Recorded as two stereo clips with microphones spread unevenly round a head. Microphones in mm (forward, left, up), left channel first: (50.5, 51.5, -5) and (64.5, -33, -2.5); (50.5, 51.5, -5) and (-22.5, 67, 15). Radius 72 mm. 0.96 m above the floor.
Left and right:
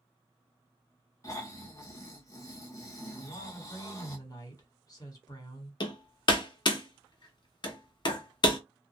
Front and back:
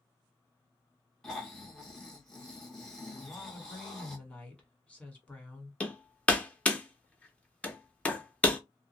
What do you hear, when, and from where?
1.2 s snoring: 60° left, 1.2 m
3.2 s a woman speaking: 55° left, 1.7 m
5.8 s hammering: 65° left, 1.0 m